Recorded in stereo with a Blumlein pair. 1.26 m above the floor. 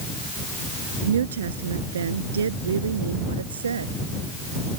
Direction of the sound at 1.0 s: 65° right.